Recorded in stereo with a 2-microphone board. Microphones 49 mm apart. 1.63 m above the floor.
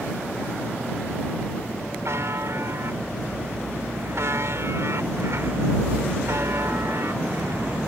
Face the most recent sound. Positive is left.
turn(degrees=-70)  # may be behind; listen again after turning